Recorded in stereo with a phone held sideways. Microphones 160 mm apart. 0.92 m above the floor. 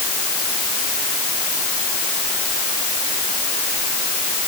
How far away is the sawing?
No sawing in this recording.